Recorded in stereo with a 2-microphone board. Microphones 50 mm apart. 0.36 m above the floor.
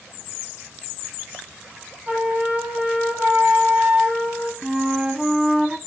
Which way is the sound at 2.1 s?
40° right (ahead or behind).